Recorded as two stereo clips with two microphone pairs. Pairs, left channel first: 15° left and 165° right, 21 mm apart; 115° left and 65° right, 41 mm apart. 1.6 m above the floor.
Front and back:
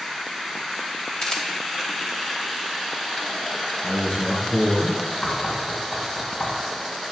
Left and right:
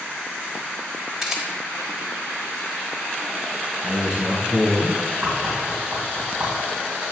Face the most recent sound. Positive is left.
turn(degrees=-20)